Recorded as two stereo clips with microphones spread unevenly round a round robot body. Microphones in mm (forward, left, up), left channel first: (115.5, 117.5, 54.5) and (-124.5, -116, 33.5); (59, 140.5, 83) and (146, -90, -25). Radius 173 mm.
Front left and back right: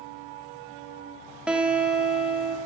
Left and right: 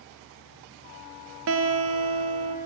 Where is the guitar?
50° right, 0.8 m.